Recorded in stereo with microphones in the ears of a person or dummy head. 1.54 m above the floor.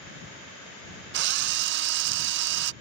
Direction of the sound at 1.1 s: 65° right (ahead or behind).